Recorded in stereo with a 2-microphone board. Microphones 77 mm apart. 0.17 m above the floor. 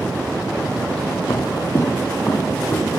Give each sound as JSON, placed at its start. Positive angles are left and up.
{"t": 1.3, "sound": "footsteps", "side_deg": 55, "distance_m": 0.5}